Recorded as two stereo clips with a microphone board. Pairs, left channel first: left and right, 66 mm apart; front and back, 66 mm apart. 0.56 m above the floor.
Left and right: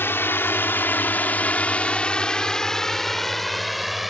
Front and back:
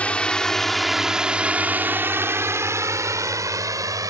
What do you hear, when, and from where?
0.0 s a drone: 60° left; by 4.1 s straight behind